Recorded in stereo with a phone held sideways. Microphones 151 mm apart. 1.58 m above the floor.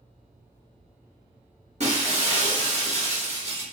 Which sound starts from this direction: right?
Breaking glass, at 1.8 s.